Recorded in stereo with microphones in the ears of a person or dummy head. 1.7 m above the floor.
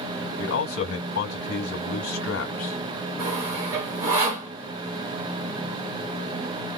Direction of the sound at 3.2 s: 20° right (ahead or behind).